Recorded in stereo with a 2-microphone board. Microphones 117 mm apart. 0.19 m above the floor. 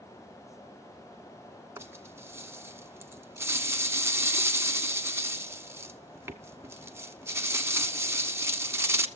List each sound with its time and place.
1.8 s a rattle: 20° right (ahead or behind), 1.0 m